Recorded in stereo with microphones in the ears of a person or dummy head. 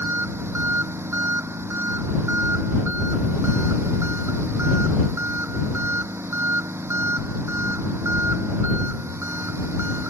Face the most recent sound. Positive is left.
turn(degrees=-15)  # may be behind; listen again after turning